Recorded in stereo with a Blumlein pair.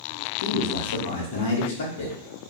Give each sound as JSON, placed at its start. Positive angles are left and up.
{"t": 0.4, "sound": "a man speaking", "azimuth_deg": 60, "distance_m": 0.7}